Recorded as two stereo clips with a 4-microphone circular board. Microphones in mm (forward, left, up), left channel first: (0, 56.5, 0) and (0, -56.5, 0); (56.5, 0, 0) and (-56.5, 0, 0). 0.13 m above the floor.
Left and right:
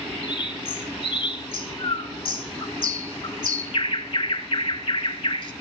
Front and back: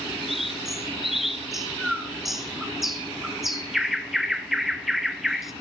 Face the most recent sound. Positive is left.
turn(degrees=90)